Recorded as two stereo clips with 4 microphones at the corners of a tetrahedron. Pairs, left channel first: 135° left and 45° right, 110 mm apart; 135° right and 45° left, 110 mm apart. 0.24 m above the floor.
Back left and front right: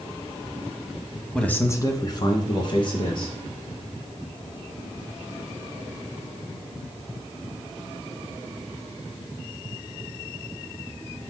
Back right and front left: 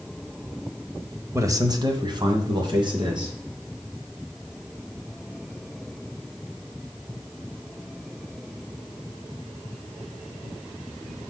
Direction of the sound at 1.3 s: 55° left.